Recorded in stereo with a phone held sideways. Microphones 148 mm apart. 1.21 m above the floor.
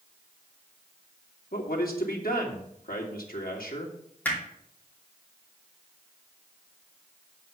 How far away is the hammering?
About 2.5 m.